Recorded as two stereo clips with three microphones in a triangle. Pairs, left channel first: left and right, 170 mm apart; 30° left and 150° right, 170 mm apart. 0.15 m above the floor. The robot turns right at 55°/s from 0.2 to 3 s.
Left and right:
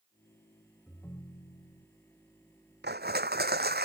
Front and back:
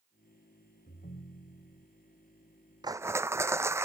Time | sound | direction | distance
0.9 | a ringtone | 5° left | ?
2.8 | crushing | 85° right | ?